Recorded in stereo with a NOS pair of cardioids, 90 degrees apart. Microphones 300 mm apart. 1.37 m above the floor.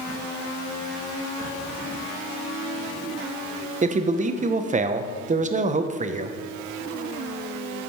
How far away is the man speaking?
About 0.7 m.